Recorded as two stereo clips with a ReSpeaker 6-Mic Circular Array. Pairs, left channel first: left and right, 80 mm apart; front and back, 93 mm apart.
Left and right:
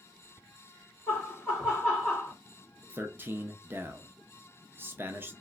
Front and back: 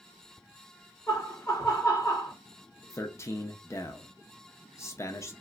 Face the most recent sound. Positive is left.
turn(degrees=-40)